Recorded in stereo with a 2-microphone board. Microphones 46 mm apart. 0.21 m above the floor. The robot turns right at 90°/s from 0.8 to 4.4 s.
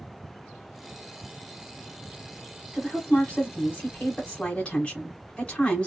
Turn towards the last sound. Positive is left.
turn(degrees=140)